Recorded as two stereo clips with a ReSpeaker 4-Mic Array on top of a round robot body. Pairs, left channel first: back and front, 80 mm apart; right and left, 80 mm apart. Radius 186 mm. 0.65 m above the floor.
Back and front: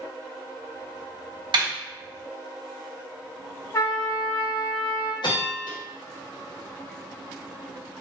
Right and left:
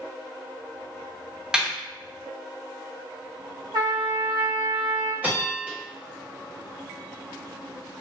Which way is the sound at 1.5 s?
10° left.